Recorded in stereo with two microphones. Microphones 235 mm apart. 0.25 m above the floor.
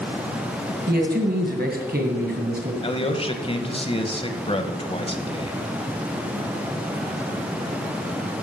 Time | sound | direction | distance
0.9 | a man speaking | 45° right (ahead or behind) | 2.0 m
2.8 | a man speaking | 25° left (ahead or behind) | 1.0 m